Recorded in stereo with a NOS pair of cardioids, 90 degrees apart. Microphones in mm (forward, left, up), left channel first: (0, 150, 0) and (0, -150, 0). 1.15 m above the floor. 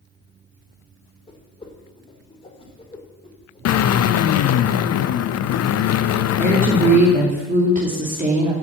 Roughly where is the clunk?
I don't hear a clunk.